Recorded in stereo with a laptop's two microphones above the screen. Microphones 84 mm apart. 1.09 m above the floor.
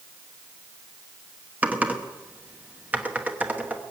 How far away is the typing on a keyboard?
About 1.1 m.